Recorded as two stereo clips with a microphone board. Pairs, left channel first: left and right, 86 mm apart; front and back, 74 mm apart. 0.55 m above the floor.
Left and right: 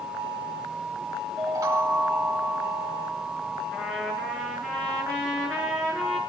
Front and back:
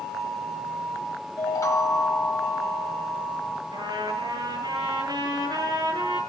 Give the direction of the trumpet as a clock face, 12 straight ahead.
6 o'clock.